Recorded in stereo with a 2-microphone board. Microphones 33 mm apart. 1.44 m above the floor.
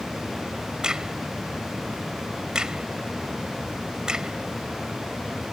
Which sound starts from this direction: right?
A crack, at 0.8 s.